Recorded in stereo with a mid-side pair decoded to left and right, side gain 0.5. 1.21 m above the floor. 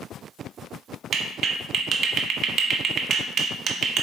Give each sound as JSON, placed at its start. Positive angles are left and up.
{"t": 1.1, "sound": "a clap", "azimuth_deg": -55, "distance_m": 0.9}